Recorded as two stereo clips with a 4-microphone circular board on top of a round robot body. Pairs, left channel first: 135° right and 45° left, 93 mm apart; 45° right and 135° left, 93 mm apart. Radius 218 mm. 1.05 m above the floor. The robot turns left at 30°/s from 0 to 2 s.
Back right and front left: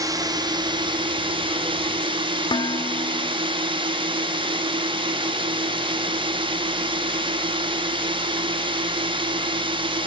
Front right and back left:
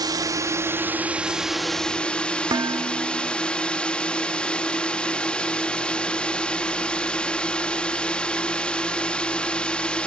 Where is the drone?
95° left; by 10.1 s 35° left.